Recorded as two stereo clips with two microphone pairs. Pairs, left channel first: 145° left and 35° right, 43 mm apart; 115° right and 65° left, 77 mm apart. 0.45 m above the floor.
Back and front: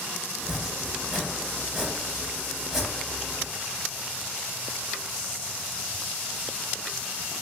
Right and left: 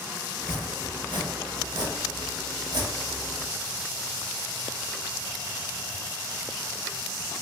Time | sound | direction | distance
0.4 | chopping | 45° left | 0.7 m